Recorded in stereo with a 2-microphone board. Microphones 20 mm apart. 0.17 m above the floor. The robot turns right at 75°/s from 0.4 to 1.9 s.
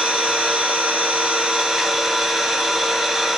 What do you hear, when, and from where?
0.0 s an engine running: 125° right, 1.3 m; by 3.4 s 10° right, 1.3 m